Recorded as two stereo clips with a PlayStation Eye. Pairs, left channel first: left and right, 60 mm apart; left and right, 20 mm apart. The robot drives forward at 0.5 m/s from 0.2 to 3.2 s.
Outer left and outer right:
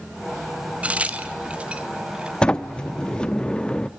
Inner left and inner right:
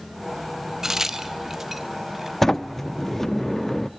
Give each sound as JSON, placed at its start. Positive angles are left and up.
{"t": 0.8, "sound": "a crack", "side_deg": -25, "distance_m": 1.4}
{"t": 2.4, "sound": "a sliding door", "side_deg": 15, "distance_m": 0.9}